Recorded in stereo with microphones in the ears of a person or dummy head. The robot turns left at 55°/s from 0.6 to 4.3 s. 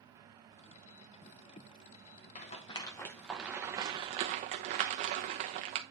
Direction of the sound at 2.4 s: 35° left (ahead or behind).